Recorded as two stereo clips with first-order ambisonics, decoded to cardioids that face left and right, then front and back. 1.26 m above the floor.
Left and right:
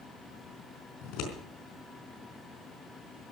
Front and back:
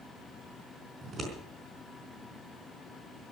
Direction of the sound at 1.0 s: 115° left.